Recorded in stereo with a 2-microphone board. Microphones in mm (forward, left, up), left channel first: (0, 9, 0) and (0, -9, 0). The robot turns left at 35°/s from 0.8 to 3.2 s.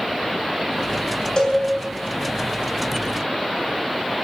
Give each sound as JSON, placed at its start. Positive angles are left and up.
{"t": 1.4, "sound": "a cowbell", "side_deg": 45, "distance_m": 3.0}